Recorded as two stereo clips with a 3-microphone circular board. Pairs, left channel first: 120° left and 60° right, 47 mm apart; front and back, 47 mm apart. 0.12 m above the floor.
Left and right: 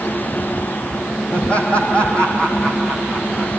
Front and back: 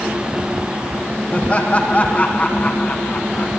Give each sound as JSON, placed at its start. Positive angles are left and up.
{"t": 1.3, "sound": "laughter", "azimuth_deg": 60, "distance_m": 5.5}